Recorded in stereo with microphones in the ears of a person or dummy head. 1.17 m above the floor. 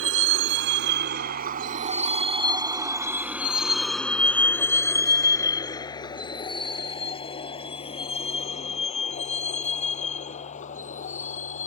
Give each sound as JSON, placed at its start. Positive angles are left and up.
{"t": 0.0, "sound": "a vehicle", "side_deg": -70}